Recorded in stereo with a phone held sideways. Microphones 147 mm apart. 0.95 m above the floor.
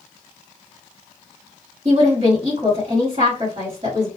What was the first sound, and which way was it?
A woman speaking, 50° right (ahead or behind).